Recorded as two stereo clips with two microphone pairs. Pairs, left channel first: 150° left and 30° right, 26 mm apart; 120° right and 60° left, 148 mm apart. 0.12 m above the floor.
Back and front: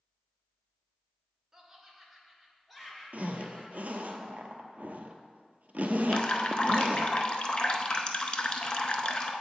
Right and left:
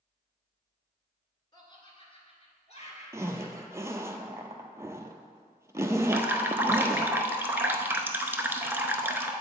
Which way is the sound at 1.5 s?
85° right.